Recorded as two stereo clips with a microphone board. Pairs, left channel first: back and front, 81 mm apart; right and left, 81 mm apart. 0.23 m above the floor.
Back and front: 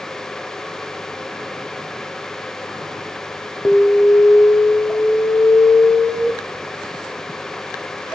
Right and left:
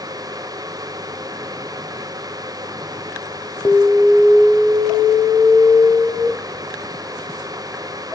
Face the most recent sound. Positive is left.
turn(degrees=-120)